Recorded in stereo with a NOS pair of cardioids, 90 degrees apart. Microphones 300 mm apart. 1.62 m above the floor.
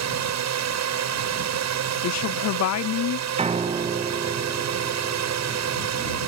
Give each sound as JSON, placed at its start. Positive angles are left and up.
{"t": 0.0, "sound": "a drone", "azimuth_deg": -65}
{"t": 2.0, "sound": "a woman speaking", "azimuth_deg": 65}
{"t": 3.4, "sound": "a piano", "azimuth_deg": -20}